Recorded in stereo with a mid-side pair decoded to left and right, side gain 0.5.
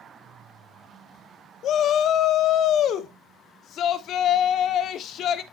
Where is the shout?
60° left, 1.2 m.